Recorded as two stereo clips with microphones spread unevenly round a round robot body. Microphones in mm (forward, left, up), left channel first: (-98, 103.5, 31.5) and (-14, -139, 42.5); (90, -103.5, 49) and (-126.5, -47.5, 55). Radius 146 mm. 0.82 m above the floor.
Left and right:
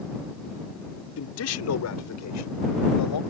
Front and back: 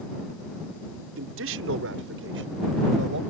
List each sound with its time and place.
1.2 s a man speaking: 135° left; by 3.2 s 115° left